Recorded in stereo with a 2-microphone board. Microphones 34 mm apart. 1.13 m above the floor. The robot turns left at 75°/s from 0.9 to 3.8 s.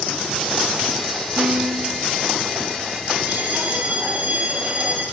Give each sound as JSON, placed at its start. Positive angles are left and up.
{"t": 1.4, "sound": "a piano", "azimuth_deg": -90, "distance_m": 4.5}
{"t": 3.3, "sound": "a bell", "azimuth_deg": -95, "distance_m": 9.0}